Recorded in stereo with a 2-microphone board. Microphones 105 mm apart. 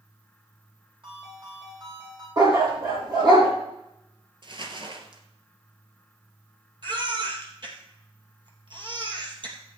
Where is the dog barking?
45° right (ahead or behind), 4 m.